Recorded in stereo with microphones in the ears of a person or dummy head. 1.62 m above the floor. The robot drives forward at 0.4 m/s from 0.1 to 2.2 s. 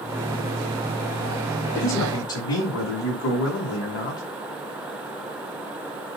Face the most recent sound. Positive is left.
turn(degrees=85)